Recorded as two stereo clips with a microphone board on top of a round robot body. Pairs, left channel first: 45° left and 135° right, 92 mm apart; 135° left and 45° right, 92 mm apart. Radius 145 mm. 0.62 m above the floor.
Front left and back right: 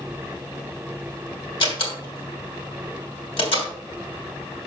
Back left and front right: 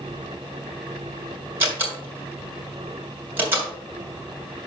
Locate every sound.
1.6 s a door slam: 25° left, 3 m